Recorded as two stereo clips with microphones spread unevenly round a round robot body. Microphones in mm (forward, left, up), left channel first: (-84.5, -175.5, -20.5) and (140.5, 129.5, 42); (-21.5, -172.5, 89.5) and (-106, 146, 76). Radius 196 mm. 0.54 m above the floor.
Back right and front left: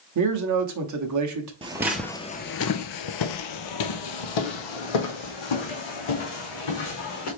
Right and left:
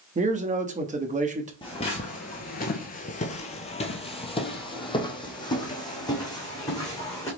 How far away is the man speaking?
About 0.9 m.